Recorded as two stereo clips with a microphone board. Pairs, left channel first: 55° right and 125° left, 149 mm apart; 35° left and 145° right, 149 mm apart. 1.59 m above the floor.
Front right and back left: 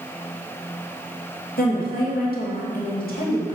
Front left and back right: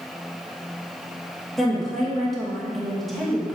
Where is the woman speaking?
55° right, 2.5 m.